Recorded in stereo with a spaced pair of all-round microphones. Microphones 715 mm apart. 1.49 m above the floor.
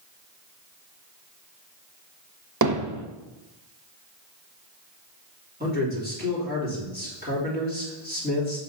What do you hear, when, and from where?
2.6 s hammering: 25° right (ahead or behind), 0.7 m
5.6 s a man speaking: 10° right (ahead or behind), 3.5 m